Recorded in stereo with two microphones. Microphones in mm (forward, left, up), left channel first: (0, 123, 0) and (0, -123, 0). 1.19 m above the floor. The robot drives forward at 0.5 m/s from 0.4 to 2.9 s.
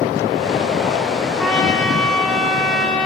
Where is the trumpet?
5° left (ahead or behind), 6 m.